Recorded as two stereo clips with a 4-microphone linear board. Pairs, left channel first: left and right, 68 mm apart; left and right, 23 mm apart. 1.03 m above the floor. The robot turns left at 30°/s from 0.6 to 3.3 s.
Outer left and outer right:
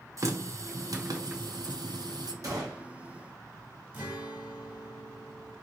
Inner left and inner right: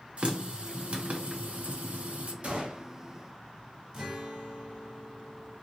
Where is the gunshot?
55° right (ahead or behind), 1.0 m; by 2.9 s 70° right (ahead or behind), 1.0 m.